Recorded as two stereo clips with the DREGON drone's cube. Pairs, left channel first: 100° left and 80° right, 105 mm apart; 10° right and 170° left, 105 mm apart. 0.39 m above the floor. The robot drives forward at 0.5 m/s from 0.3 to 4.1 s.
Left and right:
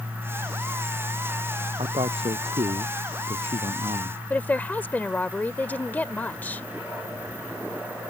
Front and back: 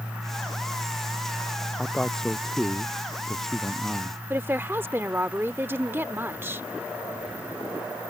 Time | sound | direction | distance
1.8 | a man speaking | 95° right | ?
4.3 | a woman speaking | 140° left | ?